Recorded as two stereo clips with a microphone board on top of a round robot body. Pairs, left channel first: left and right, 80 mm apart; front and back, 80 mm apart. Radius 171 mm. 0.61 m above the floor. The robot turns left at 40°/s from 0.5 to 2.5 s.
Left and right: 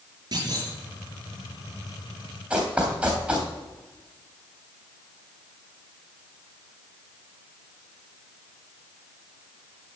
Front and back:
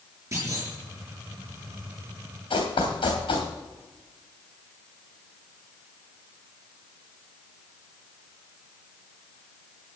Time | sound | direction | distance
0.3 | a clunk | 130° right | 5 m
2.5 | running footsteps | 10° right | 3 m